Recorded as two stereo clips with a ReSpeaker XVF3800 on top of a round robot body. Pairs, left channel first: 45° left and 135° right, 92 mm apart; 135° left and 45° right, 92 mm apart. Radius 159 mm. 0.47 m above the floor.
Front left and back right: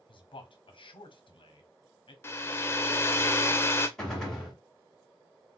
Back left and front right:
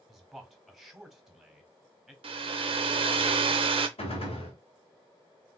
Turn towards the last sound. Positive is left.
turn(degrees=130)